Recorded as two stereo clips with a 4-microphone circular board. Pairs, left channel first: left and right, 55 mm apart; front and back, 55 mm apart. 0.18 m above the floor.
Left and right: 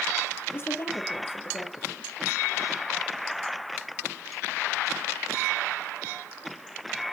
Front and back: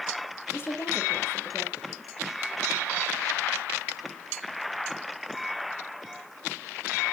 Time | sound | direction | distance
0.5 | a woman speaking | 45° left | 4.5 m